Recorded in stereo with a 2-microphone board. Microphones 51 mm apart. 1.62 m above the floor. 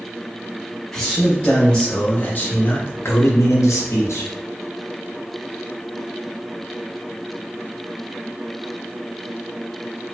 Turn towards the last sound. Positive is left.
turn(degrees=75)  # may be behind; listen again after turning